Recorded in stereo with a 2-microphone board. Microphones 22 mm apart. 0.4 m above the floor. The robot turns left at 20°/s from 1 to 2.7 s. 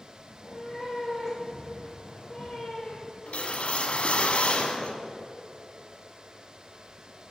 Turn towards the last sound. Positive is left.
turn(degrees=70)  # may be behind; listen again after turning